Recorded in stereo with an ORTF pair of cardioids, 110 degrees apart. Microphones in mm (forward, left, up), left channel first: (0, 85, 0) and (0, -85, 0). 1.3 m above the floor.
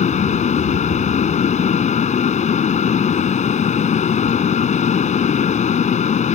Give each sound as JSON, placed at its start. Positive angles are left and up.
{"t": 0.0, "sound": "a fan", "azimuth_deg": 45}